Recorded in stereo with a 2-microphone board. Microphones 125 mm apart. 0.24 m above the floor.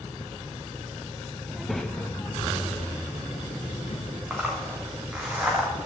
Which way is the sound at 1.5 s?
10° right (ahead or behind).